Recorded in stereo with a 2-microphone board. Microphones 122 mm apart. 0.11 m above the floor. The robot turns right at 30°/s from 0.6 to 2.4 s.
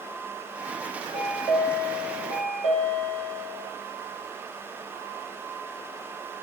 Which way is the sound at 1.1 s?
5° left.